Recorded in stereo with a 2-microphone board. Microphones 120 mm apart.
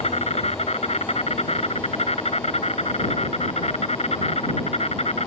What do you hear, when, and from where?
0.0 s an insect: 65° left (ahead or behind)